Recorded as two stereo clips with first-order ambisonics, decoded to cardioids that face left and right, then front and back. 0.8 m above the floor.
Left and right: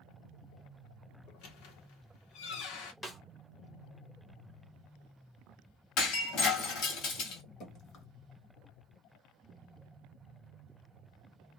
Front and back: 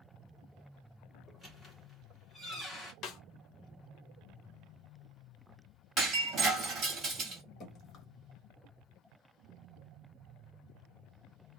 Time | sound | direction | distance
1.3 | a squeak | 85° left | 1.0 m
3.0 | a snare drum | 15° left | 0.6 m
6.0 | breaking glass | 120° left | 1.5 m
7.6 | dripping | 55° left | 1.0 m